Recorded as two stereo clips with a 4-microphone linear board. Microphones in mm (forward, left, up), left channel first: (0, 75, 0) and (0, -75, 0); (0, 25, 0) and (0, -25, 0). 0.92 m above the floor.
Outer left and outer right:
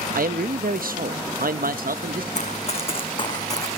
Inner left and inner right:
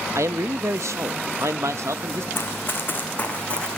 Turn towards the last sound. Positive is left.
turn(degrees=20)  # may be behind; listen again after turning